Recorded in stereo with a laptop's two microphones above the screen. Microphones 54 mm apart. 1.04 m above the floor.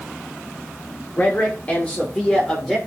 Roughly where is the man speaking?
Left.